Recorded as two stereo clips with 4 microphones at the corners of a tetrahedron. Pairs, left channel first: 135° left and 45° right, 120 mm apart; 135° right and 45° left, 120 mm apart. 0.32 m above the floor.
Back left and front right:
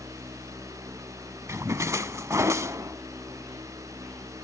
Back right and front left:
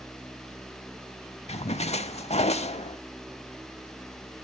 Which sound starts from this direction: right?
A splash, at 1.5 s.